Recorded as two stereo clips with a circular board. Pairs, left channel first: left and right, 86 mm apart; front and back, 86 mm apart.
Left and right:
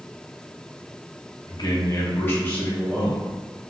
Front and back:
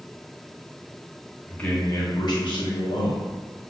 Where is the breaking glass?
No breaking glass in this recording.